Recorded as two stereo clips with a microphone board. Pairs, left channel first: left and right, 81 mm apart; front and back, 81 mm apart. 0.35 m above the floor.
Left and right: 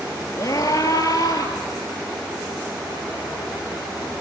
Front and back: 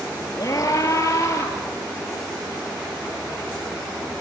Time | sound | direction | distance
0.4 | a scream | 50° left | 6.5 m